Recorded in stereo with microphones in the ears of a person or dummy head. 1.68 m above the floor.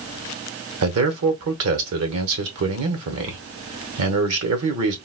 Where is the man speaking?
70° right (ahead or behind), 0.8 m.